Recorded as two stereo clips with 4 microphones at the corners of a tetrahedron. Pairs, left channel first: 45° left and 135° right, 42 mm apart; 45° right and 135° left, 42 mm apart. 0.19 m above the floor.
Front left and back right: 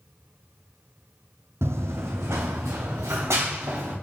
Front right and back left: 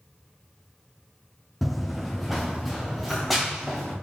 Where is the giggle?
I don't hear a giggle.